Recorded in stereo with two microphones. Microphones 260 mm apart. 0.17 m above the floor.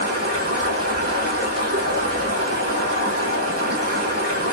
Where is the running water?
60° right (ahead or behind), 1.9 m.